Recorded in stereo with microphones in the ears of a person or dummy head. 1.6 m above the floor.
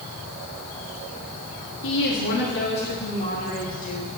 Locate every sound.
1.8 s a woman speaking: 60° left (ahead or behind), 4.5 m; by 4.1 s 40° left (ahead or behind), 3.5 m